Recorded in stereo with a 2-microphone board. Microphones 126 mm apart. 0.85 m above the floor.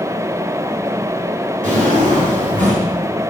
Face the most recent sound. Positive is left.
turn(degrees=-80)